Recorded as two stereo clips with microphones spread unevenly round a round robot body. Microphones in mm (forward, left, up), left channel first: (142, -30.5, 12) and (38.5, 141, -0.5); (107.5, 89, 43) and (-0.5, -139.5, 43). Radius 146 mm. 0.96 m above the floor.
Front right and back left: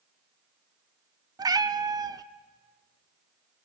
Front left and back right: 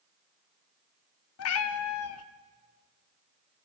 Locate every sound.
1.4 s a cat meowing: 50° left, 0.6 m